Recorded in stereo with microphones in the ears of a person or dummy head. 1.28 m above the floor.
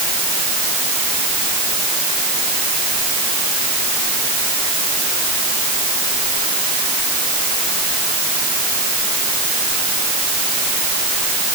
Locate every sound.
Only background noise.